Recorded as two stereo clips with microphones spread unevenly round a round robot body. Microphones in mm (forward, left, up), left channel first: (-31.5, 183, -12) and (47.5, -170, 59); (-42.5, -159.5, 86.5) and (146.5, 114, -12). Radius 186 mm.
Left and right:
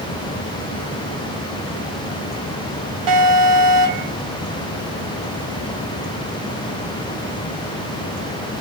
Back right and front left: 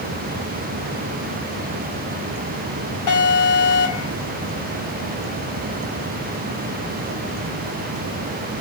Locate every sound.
3.1 s an alarm: 95° right, 2.5 m